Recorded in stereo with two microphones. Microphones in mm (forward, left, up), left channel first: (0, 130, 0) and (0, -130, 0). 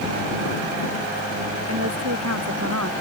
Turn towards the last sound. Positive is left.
turn(degrees=-75)  # may be behind; listen again after turning